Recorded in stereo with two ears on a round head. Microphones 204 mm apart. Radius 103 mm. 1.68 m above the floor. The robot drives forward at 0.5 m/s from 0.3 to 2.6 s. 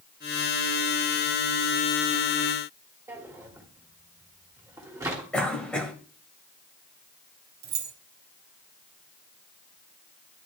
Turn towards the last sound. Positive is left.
turn(degrees=-45)  # may be behind; listen again after turning